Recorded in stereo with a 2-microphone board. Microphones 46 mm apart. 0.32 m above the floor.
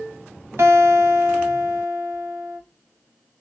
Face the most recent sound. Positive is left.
turn(degrees=-65)  # may be behind; listen again after turning